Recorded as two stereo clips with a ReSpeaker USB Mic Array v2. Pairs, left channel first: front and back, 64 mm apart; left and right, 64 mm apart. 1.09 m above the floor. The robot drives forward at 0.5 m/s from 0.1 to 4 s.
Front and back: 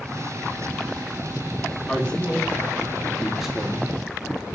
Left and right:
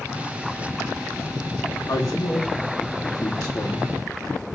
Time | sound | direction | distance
1.9 | a man speaking | 70° left | 2.0 m